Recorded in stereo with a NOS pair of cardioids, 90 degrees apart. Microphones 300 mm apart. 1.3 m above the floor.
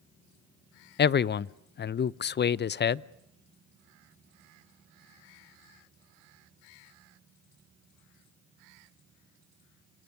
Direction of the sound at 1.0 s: 35° left.